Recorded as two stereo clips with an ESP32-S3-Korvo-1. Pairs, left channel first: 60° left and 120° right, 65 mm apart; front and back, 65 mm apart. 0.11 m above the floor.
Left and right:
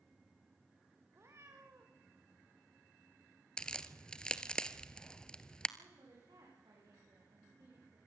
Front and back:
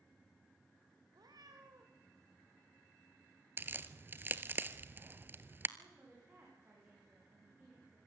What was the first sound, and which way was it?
A cat meowing, 170° right.